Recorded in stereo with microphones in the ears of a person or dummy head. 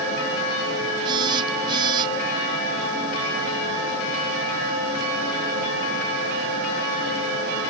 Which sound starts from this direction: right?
A phone buzzing, at 1.1 s.